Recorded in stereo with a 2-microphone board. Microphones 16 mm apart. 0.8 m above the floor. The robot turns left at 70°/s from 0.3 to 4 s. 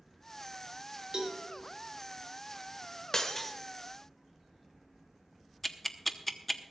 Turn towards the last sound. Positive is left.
turn(degrees=10)  # may be behind; listen again after turning